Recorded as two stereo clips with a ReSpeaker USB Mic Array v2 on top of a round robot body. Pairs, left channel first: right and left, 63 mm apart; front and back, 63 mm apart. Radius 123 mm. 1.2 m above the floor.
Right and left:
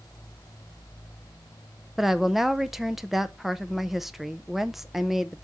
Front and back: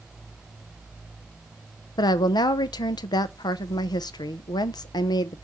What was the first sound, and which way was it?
A woman speaking, 5° left.